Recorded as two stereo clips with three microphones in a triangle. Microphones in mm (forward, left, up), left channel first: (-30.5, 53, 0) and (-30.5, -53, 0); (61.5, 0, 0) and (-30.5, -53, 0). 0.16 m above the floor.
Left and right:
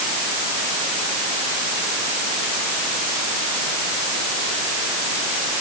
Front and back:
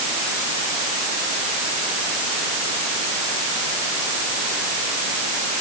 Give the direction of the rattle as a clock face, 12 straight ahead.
I don't hear a rattle.